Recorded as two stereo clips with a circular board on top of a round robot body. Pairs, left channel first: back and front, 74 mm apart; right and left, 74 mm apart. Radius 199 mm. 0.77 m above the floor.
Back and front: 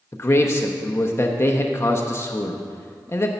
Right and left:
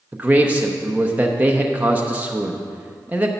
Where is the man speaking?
150° left, 0.9 m.